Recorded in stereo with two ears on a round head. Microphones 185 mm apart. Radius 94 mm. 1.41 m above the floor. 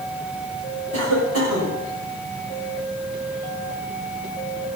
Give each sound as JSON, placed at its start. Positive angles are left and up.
{"t": 0.9, "sound": "a cough", "side_deg": -75, "distance_m": 4.5}